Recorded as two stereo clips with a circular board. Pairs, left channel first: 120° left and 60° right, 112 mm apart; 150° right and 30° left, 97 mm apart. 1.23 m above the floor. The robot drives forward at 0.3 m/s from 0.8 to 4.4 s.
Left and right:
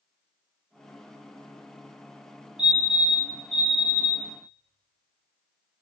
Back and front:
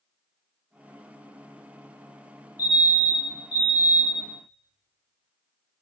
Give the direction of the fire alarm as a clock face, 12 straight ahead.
5 o'clock.